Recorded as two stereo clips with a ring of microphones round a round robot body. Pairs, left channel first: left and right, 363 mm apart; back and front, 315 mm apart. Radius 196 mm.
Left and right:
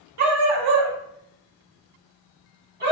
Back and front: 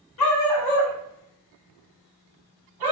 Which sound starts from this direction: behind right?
A dog barking, at 0.2 s.